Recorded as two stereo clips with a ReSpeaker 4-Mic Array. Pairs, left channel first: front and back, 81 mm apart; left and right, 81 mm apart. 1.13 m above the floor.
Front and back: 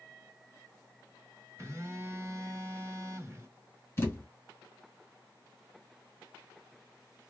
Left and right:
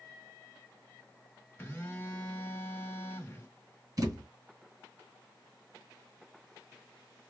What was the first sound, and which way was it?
A phone buzzing, 145° left.